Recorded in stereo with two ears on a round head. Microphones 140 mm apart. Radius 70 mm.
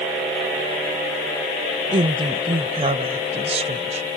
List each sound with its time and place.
1.9 s a woman speaking: 35° right (ahead or behind); by 4.1 s 45° right (ahead or behind)